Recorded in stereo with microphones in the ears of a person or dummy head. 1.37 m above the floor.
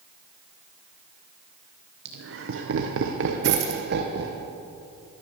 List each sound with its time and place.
2.0 s laughter: 55° right (ahead or behind), 1.0 m; by 4.4 s 50° right (ahead or behind), 1.4 m
3.4 s a dropped coin: 50° right (ahead or behind), 1.9 m